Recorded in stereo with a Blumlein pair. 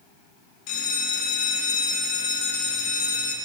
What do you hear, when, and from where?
0.7 s a bell: 40° left, 1.1 m